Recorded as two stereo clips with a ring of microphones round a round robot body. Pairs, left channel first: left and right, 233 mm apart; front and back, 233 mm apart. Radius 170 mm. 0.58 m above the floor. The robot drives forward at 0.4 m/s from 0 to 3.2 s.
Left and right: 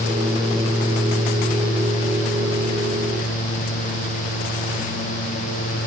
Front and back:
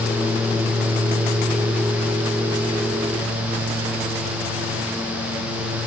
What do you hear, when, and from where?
Only background noise.